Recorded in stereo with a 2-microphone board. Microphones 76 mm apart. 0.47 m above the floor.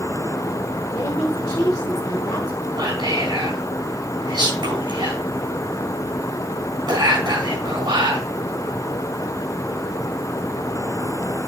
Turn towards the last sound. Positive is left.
turn(degrees=-70)  # may be behind; listen again after turning